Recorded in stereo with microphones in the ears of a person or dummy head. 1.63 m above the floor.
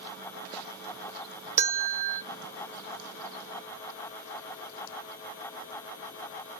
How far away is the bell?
About 0.6 m.